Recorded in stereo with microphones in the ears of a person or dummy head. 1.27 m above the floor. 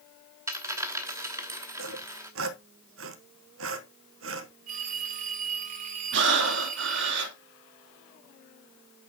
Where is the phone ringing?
40° right (ahead or behind), 1.7 m.